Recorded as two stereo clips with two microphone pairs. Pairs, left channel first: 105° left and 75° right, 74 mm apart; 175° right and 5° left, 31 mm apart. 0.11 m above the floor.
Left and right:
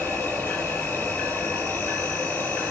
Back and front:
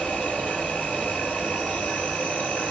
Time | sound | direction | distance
0.0 | an insect | 150° left | 2.5 m